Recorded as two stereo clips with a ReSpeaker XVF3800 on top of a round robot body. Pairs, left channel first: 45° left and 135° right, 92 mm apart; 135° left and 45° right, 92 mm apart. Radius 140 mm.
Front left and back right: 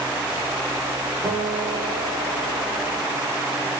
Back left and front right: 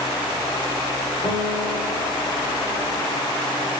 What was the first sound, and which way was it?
A guitar, 140° left.